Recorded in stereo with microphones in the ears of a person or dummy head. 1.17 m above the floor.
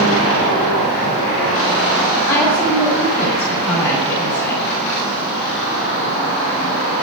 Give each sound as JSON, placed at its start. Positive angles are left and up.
{"t": 2.3, "sound": "a woman speaking", "side_deg": 5, "distance_m": 8.0}